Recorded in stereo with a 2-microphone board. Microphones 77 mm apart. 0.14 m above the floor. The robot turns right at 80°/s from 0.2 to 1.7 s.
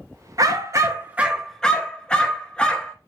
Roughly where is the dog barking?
Right.